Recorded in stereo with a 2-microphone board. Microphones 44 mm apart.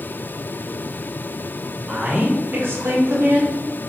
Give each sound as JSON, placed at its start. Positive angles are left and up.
{"t": 1.8, "sound": "a woman speaking", "side_deg": -30, "distance_m": 1.2}